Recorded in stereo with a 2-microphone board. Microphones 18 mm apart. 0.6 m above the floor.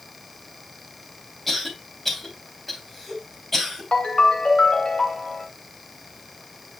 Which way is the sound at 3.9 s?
75° left (ahead or behind).